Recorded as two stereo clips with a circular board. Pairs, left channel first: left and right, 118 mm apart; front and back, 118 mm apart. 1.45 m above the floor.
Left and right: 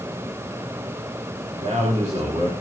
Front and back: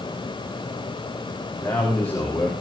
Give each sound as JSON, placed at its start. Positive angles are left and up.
{"t": 1.6, "sound": "a man speaking", "azimuth_deg": -75, "distance_m": 3.5}